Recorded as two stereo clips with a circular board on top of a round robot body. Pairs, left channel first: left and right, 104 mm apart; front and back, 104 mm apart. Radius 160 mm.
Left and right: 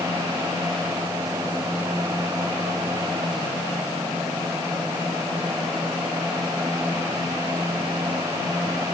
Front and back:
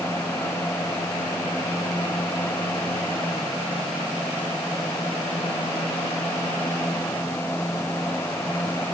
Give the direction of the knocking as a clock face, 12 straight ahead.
I don't hear knocking.